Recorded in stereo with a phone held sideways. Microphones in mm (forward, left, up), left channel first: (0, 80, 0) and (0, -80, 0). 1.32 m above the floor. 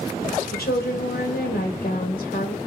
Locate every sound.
0.5 s a woman speaking: 85° left, 1.1 m